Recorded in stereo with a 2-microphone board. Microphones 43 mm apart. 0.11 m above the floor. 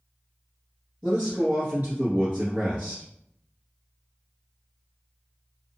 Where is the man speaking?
35° right (ahead or behind), 1.3 m.